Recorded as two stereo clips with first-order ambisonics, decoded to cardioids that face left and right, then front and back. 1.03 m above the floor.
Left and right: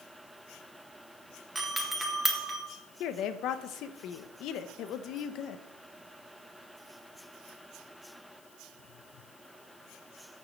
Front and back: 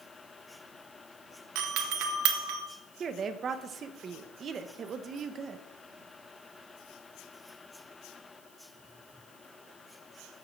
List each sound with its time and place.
1.6 s a doorbell: 175° right, 1.6 m
3.0 s a woman speaking: 120° left, 0.9 m